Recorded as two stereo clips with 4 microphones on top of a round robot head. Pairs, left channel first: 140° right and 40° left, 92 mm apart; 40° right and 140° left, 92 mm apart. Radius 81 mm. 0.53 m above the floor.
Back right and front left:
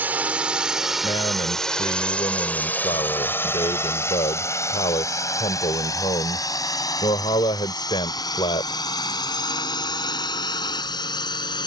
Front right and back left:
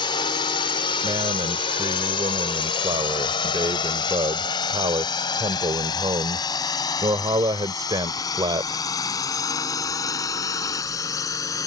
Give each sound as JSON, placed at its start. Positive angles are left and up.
{"t": 0.0, "sound": "a drone", "azimuth_deg": -25}
{"t": 1.0, "sound": "a man speaking", "azimuth_deg": -175}